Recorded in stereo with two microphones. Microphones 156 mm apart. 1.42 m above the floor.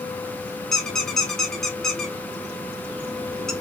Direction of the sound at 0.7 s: Centre (ahead or behind).